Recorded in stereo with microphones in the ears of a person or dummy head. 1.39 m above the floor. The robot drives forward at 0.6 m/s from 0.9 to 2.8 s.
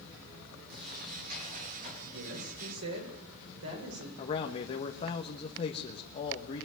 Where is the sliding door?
60° right (ahead or behind), 4.5 m; by 1.9 s 55° right (ahead or behind), 5 m.